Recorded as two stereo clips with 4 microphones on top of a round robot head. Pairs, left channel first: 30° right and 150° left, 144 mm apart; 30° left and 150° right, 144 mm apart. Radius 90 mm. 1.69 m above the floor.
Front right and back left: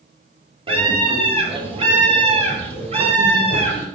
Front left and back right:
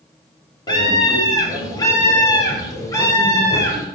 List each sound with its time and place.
0.7 s a scream: 95° left, 5.5 m; by 3.9 s 100° left, 7.5 m